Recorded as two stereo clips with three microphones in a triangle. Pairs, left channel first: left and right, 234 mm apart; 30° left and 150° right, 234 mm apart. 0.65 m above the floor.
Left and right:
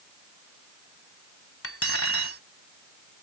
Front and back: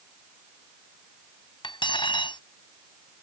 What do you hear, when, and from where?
1.6 s cutlery clinking: 100° left